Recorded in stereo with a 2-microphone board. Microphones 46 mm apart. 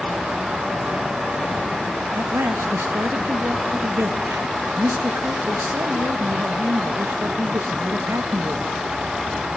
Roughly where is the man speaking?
Right.